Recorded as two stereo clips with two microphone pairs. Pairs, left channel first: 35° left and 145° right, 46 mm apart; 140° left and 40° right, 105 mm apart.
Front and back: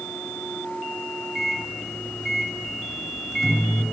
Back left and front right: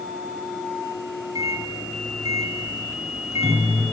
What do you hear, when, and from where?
1.4 s a microwave: 55° right, 1.5 m